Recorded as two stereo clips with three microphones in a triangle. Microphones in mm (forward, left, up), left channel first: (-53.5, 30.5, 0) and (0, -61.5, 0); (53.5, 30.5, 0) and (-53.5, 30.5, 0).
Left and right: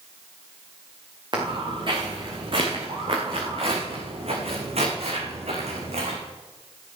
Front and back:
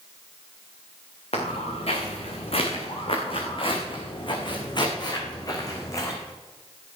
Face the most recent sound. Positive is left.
turn(degrees=-65)